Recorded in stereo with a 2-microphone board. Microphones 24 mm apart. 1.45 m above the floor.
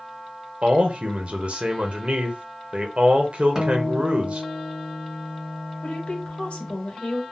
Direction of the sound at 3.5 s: 20° right (ahead or behind).